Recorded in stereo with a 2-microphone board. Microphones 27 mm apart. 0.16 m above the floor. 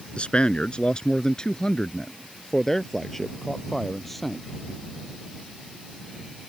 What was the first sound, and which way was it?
A man speaking, 45° left (ahead or behind).